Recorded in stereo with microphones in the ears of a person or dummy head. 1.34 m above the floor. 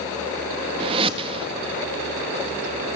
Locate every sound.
0.8 s a whoosh: 30° right (ahead or behind), 1.5 m